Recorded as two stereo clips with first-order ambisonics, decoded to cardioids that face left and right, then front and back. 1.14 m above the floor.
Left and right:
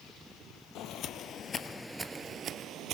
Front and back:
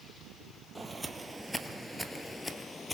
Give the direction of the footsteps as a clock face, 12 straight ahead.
9 o'clock.